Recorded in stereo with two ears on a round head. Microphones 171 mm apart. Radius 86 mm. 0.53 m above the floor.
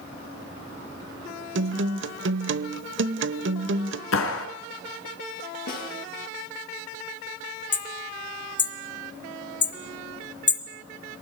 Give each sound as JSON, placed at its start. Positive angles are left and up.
{"t": 1.6, "sound": "a guitar", "side_deg": -70, "distance_m": 1.0}
{"t": 4.1, "sound": "a clap", "side_deg": 80, "distance_m": 4.5}
{"t": 5.7, "sound": "a snare drum", "side_deg": 50, "distance_m": 10.0}
{"t": 7.7, "sound": "hammering", "side_deg": 25, "distance_m": 3.5}